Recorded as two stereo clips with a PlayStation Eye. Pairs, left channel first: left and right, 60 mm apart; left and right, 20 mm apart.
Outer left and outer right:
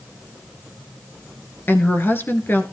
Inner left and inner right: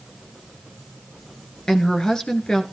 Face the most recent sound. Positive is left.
turn(degrees=35)  # may be behind; listen again after turning